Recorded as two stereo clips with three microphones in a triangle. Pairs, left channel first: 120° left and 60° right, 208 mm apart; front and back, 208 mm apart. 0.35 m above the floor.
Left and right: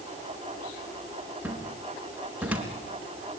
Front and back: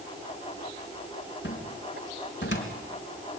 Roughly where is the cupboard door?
Ahead left.